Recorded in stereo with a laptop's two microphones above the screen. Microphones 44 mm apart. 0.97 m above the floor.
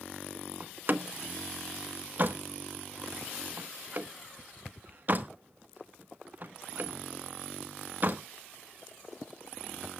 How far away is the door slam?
About 1.3 m.